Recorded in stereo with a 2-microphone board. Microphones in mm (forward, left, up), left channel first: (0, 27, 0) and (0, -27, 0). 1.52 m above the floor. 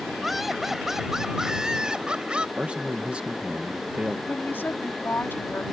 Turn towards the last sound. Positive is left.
turn(degrees=45)  # may be behind; listen again after turning